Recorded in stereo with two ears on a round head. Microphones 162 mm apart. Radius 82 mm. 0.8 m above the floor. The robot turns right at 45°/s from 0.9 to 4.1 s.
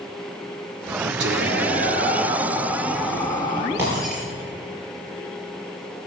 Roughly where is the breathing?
I don't hear breathing.